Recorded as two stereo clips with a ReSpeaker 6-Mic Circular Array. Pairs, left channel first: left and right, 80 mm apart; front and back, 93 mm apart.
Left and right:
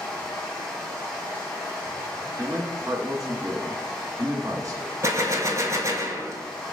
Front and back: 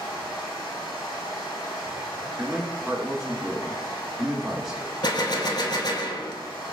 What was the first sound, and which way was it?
Running water, 10° left.